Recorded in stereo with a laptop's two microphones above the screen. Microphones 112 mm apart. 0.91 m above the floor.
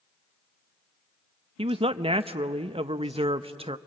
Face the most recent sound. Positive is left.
turn(degrees=-60)  # may be behind; listen again after turning